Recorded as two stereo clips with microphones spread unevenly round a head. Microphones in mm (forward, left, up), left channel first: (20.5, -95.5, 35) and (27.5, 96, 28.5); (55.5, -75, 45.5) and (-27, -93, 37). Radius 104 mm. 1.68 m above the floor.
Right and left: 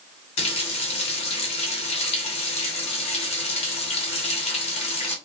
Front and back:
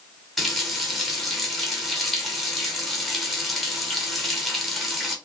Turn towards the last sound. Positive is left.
turn(degrees=-65)